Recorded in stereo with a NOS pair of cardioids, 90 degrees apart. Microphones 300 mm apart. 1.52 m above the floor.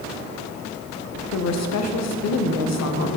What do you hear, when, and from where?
1.3 s a woman speaking: 60° left, 1.2 m